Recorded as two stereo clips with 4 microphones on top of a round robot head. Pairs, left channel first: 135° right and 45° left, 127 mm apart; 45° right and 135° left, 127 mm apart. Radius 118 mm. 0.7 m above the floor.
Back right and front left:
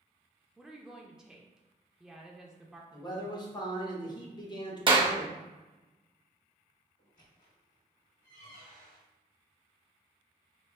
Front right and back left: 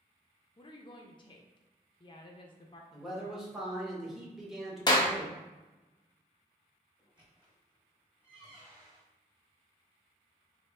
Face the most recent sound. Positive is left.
turn(degrees=-145)